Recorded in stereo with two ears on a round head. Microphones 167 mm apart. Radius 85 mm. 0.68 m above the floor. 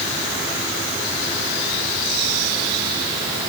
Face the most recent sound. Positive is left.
No sound to turn to.